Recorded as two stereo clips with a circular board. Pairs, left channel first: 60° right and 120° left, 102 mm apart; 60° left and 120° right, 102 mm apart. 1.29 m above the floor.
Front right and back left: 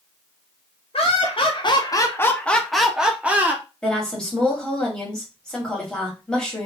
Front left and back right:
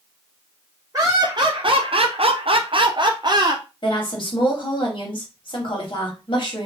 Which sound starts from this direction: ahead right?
Laughter, at 0.9 s.